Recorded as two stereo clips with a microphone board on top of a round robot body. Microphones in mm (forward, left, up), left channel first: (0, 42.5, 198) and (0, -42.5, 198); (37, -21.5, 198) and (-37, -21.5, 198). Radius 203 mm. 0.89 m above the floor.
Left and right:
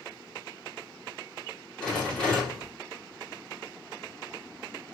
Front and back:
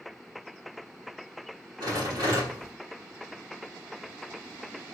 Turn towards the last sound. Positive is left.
turn(degrees=170)